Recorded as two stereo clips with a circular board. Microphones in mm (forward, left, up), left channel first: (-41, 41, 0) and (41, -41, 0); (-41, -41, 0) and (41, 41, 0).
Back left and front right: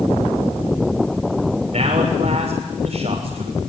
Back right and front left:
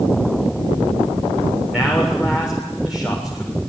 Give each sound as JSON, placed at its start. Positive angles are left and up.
{"t": 1.7, "sound": "a man speaking", "azimuth_deg": -40, "distance_m": 7.0}